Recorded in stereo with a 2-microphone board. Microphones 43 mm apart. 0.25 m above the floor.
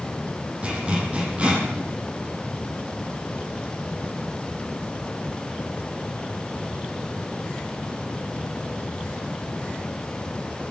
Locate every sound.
0.6 s a zipper: 30° right (ahead or behind), 8.5 m